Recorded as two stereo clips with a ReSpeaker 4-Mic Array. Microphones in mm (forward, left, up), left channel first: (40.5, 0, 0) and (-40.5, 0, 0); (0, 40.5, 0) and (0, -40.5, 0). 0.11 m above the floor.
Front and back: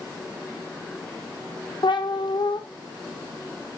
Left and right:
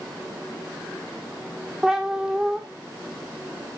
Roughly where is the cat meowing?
Ahead.